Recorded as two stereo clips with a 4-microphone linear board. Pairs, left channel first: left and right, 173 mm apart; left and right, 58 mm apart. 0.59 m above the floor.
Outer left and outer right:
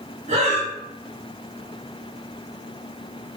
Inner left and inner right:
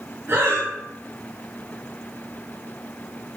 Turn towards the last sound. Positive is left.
turn(degrees=-45)  # may be behind; listen again after turning